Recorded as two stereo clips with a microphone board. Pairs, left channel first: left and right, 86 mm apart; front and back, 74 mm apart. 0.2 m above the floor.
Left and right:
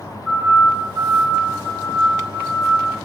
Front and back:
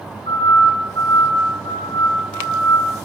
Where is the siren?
5° right, 7.5 m; by 2.9 s 15° right, 6 m.